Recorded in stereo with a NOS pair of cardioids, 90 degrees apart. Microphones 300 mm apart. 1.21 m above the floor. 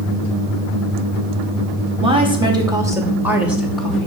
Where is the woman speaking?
20° right, 3 m; by 4.1 s 5° left, 3 m.